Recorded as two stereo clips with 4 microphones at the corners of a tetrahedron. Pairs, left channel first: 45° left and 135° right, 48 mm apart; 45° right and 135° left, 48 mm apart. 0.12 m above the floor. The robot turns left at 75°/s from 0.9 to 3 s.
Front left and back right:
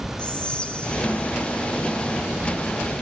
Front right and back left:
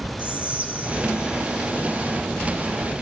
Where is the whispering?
100° left, 2 m; by 1.7 s 40° left, 2 m.